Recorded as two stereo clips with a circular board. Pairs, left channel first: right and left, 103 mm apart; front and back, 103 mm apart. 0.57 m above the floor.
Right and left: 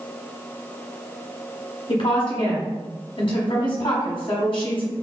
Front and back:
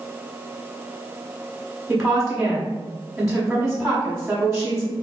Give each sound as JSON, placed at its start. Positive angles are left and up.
{"t": 1.9, "sound": "a woman speaking", "azimuth_deg": -95, "distance_m": 1.4}